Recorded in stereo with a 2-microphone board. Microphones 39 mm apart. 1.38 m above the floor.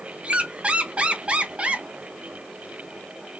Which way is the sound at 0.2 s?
30° right (ahead or behind).